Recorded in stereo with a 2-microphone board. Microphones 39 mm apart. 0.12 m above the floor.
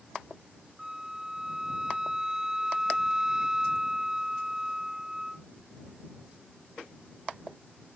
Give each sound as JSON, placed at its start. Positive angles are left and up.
{"t": 0.8, "sound": "a flute", "side_deg": -15}